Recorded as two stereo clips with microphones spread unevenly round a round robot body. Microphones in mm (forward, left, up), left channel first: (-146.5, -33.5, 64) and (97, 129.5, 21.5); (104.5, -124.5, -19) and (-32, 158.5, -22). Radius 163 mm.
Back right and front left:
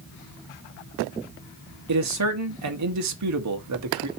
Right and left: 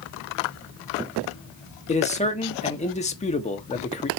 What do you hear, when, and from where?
1.9 s a man speaking: 5° left, 1.4 m